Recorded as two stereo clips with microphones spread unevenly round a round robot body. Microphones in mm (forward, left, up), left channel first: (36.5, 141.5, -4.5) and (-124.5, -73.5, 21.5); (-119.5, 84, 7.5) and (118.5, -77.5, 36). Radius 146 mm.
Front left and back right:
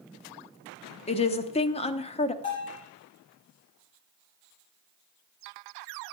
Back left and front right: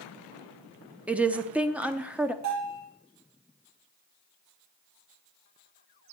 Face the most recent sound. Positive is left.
turn(degrees=0)